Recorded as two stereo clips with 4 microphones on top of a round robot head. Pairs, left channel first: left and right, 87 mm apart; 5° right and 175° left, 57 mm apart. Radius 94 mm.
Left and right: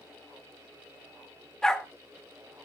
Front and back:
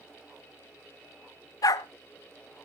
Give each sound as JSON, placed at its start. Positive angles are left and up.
{"t": 1.6, "sound": "a dog barking", "azimuth_deg": 5, "distance_m": 0.7}